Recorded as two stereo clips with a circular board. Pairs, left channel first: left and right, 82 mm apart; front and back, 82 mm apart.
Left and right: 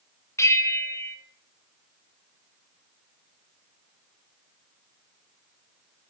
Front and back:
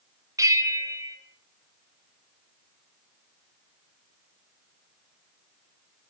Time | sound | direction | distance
0.4 | a bell | 140° left | 0.9 m